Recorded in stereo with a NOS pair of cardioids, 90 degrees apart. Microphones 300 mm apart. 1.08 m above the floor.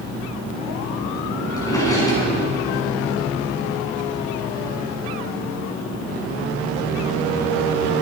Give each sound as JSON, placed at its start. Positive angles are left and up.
{"t": 1.6, "sound": "a drawer", "azimuth_deg": 10, "distance_m": 6.5}